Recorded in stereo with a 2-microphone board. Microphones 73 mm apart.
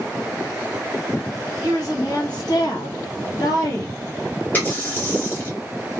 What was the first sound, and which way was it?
A woman speaking, 50° left (ahead or behind).